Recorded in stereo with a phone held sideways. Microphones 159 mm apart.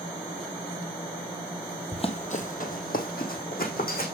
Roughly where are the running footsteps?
Left.